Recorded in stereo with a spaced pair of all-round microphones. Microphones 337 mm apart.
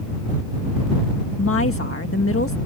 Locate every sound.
1.4 s a woman speaking: 40° left (ahead or behind)